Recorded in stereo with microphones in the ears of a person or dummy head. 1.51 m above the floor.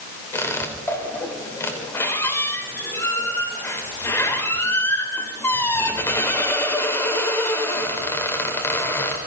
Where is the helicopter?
I don't hear a helicopter.